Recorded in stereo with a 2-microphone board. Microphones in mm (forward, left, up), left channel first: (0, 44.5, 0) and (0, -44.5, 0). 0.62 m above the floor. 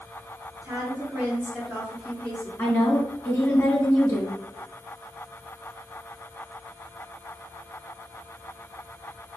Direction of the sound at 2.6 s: 20° left (ahead or behind).